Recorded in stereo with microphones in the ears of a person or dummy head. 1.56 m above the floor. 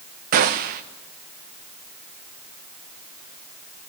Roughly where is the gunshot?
Right.